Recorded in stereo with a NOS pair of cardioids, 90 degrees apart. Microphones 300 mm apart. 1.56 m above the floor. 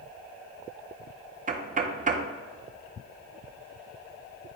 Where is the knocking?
25° right, 0.7 m.